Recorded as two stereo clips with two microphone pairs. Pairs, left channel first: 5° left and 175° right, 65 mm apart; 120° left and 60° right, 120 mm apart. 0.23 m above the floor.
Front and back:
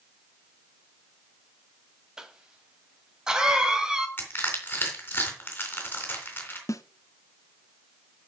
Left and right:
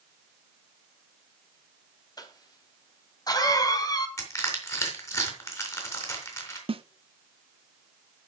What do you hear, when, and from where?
2.2 s a cough: 115° left, 1.7 m
4.2 s crushing: 60° left, 3.5 m
6.7 s a snare drum: 25° right, 0.6 m